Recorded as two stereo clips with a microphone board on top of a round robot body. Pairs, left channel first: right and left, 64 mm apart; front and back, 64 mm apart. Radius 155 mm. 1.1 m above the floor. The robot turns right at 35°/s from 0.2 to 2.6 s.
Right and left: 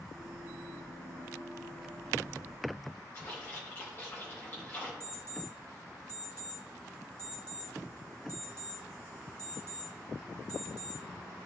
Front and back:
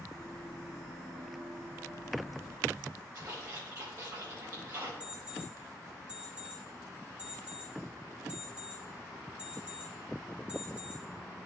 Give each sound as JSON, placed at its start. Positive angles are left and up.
{"t": 3.1, "sound": "a splash", "azimuth_deg": -145, "distance_m": 2.5}
{"t": 5.0, "sound": "an alarm clock", "azimuth_deg": -105, "distance_m": 3.0}